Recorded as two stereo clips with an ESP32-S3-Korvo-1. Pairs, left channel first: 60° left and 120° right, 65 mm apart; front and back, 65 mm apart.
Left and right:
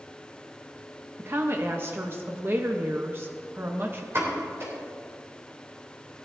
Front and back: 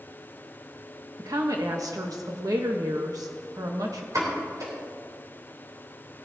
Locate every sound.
1.2 s a woman speaking: 170° right, 1.0 m
4.1 s a pop: 160° right, 3.5 m